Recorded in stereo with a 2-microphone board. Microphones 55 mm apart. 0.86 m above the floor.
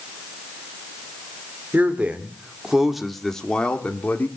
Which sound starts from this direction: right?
A man speaking, at 1.7 s.